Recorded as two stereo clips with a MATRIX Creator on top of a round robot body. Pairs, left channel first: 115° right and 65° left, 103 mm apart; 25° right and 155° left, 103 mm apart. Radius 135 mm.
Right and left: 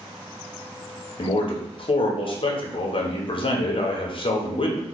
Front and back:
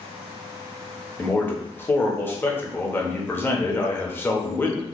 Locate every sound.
1.2 s a man speaking: 90° right, 1.0 m